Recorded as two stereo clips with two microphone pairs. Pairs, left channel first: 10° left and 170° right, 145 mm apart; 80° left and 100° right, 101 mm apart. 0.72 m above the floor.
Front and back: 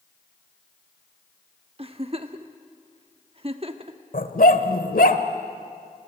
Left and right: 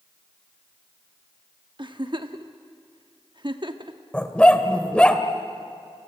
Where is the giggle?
130° right, 1.1 m.